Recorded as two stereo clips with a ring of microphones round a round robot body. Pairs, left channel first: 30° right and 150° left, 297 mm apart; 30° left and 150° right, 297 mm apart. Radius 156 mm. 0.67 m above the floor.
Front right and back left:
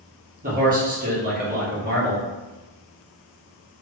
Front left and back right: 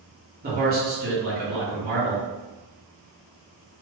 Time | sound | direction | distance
0.4 | a man speaking | 175° right | 1.3 m